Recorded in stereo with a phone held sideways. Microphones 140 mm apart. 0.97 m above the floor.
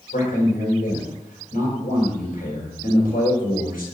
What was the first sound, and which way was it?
A man speaking, 80° left.